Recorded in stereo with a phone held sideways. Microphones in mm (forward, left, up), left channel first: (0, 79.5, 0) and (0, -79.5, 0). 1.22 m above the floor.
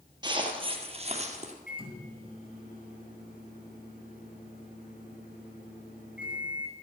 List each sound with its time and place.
0.2 s footsteps: 25° right (ahead or behind), 2.0 m; by 1.5 s 45° right (ahead or behind), 2 m
1.7 s a microwave: 65° left (ahead or behind), 5 m